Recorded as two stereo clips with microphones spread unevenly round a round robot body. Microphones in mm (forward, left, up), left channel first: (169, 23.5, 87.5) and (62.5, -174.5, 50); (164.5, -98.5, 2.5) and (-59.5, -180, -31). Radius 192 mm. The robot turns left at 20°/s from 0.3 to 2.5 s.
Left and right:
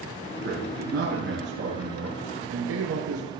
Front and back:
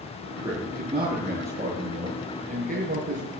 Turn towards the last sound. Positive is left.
turn(degrees=-125)